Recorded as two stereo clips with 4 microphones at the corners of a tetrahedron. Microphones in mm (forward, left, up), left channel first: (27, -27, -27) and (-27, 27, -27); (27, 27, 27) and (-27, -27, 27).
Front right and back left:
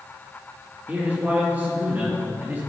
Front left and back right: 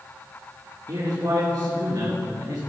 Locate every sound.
0.9 s a man speaking: 160° right, 3 m